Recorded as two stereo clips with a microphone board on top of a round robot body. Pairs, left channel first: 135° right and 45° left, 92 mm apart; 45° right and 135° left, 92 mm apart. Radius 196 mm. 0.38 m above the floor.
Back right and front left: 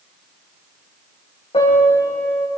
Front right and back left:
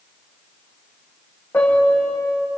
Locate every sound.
1.5 s a piano: 120° right, 8 m